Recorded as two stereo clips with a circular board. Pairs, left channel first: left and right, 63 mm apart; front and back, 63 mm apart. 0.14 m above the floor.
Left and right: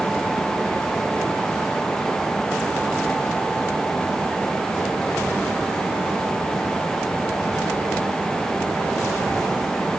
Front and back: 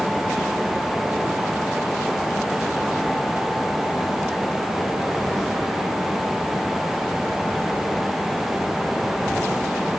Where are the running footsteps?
I don't hear running footsteps.